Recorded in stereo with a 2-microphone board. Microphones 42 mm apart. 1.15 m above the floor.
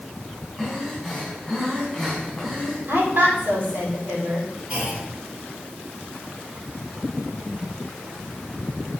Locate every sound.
0.6 s breathing: centre (ahead or behind), 4.5 m
2.9 s a woman speaking: 65° right (ahead or behind), 3 m
4.7 s a clunk: 20° right (ahead or behind), 3 m